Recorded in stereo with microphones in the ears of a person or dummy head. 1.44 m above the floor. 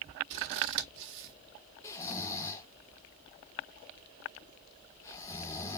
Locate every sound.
0.3 s scissors: 60° right (ahead or behind), 1.7 m
1.8 s snoring: 25° left (ahead or behind), 1.2 m